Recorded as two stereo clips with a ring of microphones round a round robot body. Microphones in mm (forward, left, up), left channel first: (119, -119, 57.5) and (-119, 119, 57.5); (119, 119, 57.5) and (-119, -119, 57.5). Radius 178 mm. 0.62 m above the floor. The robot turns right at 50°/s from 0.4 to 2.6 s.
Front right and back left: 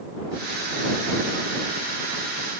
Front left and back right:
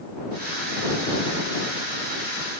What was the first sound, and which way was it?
Only background noise.